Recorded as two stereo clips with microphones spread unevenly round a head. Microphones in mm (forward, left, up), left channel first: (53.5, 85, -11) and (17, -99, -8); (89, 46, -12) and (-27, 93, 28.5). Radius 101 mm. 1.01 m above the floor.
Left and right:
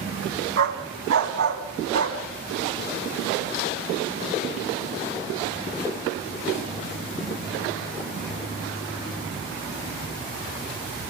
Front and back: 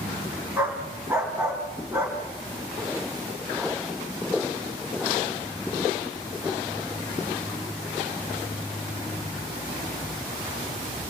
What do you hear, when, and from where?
0.6 s a dog barking: 125° right, 3 m